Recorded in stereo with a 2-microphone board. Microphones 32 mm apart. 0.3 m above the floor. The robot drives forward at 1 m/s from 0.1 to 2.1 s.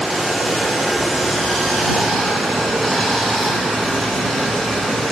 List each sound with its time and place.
0.0 s running water: 5° left (ahead or behind), 4 m; by 5.1 s 10° left (ahead or behind), 2.5 m